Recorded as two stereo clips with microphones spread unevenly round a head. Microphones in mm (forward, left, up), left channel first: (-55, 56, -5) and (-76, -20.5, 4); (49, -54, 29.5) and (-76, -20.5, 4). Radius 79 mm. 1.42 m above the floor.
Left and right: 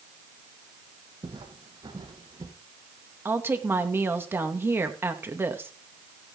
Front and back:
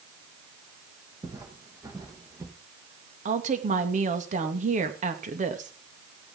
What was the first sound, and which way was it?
Footsteps, 130° right.